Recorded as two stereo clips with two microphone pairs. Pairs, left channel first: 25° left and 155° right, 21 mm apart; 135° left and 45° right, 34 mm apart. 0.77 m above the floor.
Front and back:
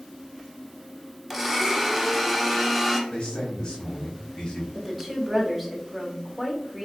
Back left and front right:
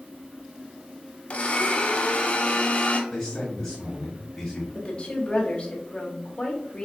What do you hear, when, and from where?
1.3 s a blender: 115° left, 0.7 m
3.1 s a man speaking: 70° left, 1.7 m
4.8 s a woman speaking: 110° left, 1.0 m